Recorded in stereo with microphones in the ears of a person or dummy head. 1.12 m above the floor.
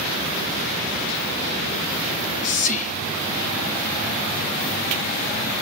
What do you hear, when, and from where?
2.1 s whispering: 45° left (ahead or behind), 0.6 m